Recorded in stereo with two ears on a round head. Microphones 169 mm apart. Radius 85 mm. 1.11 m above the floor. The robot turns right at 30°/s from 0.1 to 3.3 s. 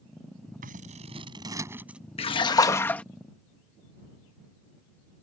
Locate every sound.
0.6 s scissors: 45° right; by 2.0 s 5° right
2.2 s a splash: 30° left (ahead or behind); by 3.0 s 5° left (ahead or behind)